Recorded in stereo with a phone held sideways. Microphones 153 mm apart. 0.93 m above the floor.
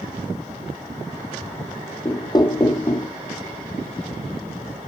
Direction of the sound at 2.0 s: 25° left (ahead or behind).